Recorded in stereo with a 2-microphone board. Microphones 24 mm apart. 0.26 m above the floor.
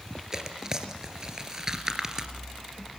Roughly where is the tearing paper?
Right.